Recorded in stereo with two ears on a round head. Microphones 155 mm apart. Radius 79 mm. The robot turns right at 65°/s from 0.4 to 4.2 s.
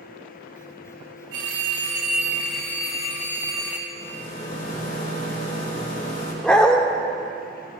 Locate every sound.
1.3 s a phone ringing: 80° right, 1.8 m; by 3.8 s 80° left, 1.8 m
3.9 s a rattle: 75° left (ahead or behind), 3 m; by 6.3 s 55° left (ahead or behind), 3 m
6.4 s a dog barking: 5° left (ahead or behind), 0.9 m